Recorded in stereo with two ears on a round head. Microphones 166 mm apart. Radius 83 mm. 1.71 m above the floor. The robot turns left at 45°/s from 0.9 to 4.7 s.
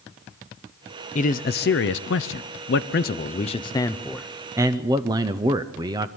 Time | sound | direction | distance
1.1 | a man speaking | 140° left | 0.6 m